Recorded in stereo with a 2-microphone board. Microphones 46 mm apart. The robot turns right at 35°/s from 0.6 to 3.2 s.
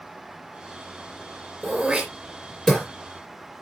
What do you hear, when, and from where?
1.6 s throat clearing: 25° right (ahead or behind), 3.5 m; by 2.9 s 20° left (ahead or behind), 3.5 m